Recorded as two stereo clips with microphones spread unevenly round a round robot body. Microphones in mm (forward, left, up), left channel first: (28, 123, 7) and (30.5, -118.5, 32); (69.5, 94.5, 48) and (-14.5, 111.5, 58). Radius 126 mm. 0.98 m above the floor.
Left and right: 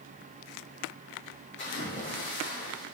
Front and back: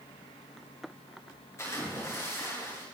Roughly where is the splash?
Ahead left.